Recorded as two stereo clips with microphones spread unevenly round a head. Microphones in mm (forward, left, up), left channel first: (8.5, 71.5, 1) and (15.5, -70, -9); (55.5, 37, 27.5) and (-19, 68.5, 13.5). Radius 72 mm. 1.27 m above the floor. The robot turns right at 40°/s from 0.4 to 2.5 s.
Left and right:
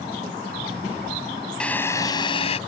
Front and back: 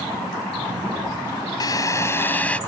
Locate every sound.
1.6 s a drill: 10° left; by 2.6 s 45° left